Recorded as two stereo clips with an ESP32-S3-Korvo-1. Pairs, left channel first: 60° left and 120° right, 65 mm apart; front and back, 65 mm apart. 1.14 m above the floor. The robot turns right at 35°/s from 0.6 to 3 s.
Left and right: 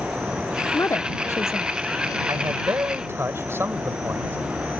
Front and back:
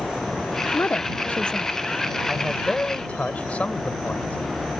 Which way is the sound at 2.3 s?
95° right.